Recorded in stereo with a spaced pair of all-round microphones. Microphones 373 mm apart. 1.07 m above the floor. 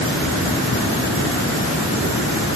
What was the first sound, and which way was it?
Only background noise.